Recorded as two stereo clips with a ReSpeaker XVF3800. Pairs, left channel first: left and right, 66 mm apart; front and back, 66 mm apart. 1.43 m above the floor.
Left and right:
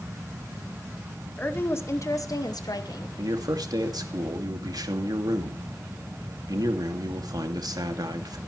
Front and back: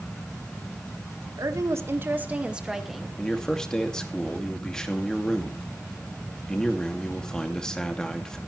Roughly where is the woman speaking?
Behind left.